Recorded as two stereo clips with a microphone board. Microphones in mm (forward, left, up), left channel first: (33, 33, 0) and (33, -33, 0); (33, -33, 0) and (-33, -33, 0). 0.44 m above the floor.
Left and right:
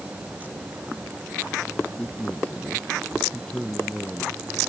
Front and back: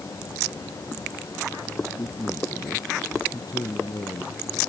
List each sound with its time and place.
2.0 s a man speaking: 15° left